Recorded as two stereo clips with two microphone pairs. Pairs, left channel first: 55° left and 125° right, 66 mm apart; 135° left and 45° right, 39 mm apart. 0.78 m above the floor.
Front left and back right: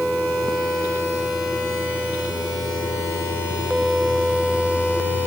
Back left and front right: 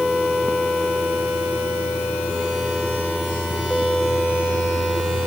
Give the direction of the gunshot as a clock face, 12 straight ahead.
No gunshot in this recording.